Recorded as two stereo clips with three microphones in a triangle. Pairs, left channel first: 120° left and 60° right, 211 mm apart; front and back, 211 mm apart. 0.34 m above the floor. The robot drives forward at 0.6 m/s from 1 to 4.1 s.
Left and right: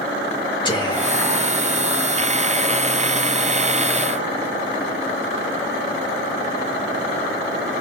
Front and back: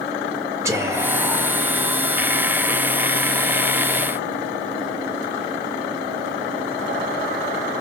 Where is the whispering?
130° left, 0.8 m; by 1.6 s 155° left, 1.0 m.